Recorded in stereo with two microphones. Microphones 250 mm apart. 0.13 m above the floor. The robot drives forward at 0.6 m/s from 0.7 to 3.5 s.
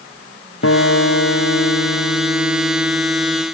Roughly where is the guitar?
Left.